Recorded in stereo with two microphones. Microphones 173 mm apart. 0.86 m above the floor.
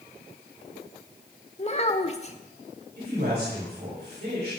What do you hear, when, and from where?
1.6 s a child speaking: 40° left (ahead or behind), 1.2 m
3.0 s a man speaking: 70° right (ahead or behind), 4.5 m